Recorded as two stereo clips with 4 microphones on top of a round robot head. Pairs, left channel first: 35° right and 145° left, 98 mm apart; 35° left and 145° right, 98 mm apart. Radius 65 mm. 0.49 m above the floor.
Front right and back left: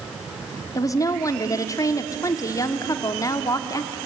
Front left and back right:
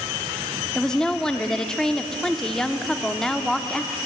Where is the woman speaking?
45° right, 1.2 m.